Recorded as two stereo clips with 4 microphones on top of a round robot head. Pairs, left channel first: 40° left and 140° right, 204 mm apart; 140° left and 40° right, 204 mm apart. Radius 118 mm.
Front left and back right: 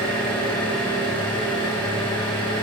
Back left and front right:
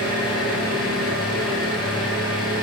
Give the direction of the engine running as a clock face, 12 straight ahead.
8 o'clock.